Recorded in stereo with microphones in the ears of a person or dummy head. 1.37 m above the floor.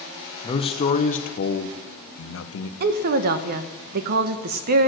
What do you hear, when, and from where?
0.4 s a man speaking: 25° left (ahead or behind), 1.3 m; by 2.7 s 70° left (ahead or behind), 1.2 m
2.8 s a woman speaking: 55° right (ahead or behind), 1.0 m